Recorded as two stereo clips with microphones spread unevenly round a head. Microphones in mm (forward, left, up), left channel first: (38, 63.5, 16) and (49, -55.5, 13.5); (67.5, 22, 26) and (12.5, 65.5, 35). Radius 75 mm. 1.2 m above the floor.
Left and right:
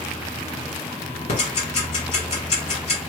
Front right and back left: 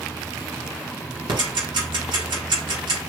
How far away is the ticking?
About 1.7 m.